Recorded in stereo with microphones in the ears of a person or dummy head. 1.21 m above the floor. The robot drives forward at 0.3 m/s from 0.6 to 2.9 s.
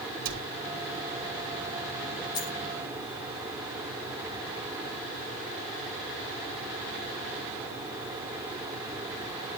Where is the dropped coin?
20° left (ahead or behind), 0.7 m.